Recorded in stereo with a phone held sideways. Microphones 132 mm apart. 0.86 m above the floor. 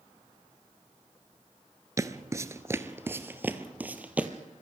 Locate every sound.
2.0 s footsteps: 25° right (ahead or behind), 0.9 m; by 4.3 s 10° right (ahead or behind), 1.6 m